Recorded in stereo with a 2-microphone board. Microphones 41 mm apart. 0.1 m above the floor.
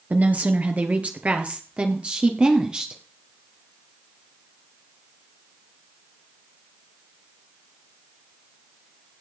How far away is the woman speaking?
About 2.5 m.